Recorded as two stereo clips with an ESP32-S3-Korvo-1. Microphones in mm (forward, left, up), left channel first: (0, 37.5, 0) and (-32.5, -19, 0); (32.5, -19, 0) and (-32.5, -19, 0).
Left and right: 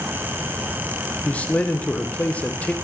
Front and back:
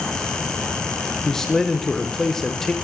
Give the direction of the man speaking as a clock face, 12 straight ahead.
10 o'clock.